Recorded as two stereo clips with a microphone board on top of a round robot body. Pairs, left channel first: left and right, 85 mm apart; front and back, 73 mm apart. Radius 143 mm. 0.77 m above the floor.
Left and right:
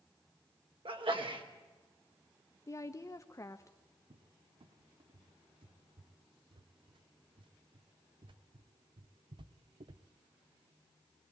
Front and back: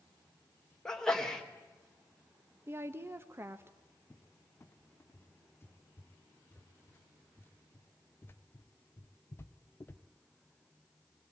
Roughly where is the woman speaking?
Behind left.